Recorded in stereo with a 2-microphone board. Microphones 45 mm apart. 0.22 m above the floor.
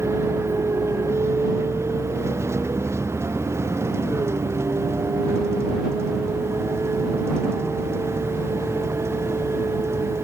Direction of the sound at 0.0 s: 85° right.